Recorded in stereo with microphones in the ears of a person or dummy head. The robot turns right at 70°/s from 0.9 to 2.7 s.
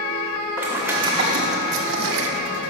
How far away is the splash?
About 0.8 m.